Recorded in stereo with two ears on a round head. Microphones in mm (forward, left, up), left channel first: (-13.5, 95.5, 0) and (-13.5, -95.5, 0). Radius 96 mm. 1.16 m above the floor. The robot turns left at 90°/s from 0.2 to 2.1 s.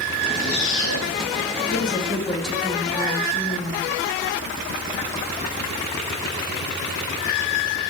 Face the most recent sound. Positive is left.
turn(degrees=0)